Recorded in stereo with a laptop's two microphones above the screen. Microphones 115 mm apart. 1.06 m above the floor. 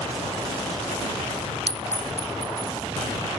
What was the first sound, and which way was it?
A clink, 60° right (ahead or behind).